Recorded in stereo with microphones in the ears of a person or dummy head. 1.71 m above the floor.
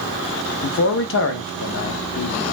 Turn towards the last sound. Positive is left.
turn(degrees=60)  # may be behind; listen again after turning